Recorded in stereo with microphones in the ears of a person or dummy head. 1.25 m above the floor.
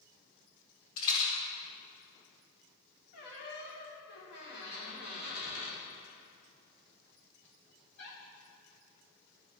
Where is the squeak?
55° left (ahead or behind), 1.8 m.